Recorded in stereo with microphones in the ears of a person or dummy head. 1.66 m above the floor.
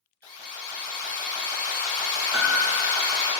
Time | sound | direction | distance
0.2 | an alarm | 10° left (ahead or behind) | 1.7 m
2.3 | a piano | 20° right (ahead or behind) | 0.8 m